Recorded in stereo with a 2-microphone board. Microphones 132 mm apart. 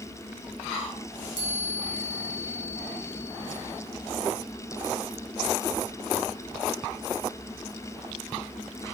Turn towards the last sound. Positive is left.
turn(degrees=80)